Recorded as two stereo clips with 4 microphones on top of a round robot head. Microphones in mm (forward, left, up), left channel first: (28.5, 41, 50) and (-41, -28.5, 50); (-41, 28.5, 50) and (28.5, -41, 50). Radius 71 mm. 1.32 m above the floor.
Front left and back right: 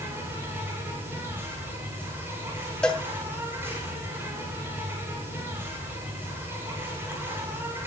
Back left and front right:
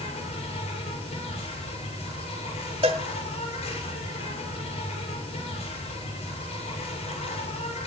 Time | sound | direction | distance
0.0 | an insect | 155° left | 6.5 m
2.8 | a cowbell | 35° right | 1.1 m